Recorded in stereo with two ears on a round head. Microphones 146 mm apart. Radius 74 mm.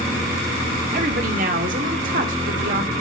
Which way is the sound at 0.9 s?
50° right (ahead or behind).